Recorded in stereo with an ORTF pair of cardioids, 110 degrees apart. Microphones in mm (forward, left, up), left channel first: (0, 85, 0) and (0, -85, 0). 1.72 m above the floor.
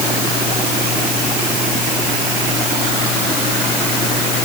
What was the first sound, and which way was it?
Only background noise.